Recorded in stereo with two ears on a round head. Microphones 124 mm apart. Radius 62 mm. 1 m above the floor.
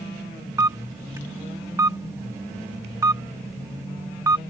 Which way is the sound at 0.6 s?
20° right (ahead or behind).